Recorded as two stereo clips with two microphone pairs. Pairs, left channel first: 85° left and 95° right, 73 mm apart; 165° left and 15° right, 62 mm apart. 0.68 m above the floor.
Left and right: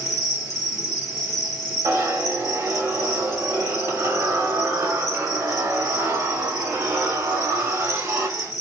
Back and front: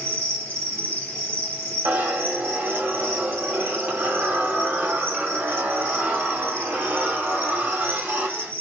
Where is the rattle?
I don't hear a rattle.